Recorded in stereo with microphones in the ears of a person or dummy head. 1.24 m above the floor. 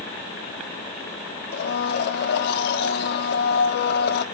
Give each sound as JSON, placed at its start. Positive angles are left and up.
{"t": 1.5, "sound": "a blender", "side_deg": 65, "distance_m": 1.4}